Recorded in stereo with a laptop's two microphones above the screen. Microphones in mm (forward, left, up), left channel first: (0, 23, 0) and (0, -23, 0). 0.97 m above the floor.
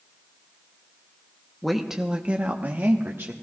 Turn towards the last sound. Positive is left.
turn(degrees=-60)  # may be behind; listen again after turning